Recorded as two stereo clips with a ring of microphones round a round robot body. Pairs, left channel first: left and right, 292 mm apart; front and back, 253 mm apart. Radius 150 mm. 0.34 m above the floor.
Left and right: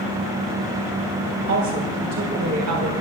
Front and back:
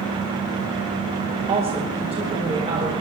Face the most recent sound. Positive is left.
turn(degrees=-110)